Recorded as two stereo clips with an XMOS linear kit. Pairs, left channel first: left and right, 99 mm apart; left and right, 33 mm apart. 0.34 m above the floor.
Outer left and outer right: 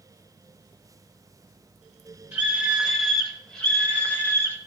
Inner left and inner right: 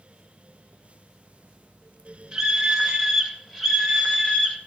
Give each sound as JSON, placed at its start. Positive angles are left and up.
{"t": 2.3, "sound": "a scream", "side_deg": -15, "distance_m": 1.7}